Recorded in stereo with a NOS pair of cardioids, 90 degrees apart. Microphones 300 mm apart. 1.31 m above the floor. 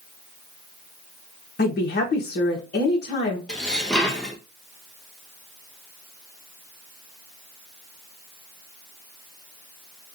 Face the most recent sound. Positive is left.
turn(degrees=5)